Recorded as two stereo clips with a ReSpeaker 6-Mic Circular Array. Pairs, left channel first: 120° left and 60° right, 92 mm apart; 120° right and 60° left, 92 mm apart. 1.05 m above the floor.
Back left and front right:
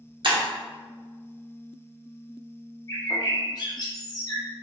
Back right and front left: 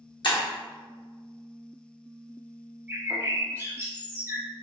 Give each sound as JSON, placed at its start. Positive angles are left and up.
{"t": 0.2, "sound": "breaking glass", "azimuth_deg": -85, "distance_m": 0.8}
{"t": 2.9, "sound": "a bird", "azimuth_deg": 120, "distance_m": 0.6}